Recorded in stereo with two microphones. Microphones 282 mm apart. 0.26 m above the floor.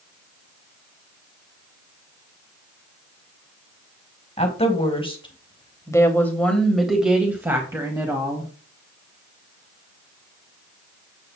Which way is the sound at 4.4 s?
20° left (ahead or behind).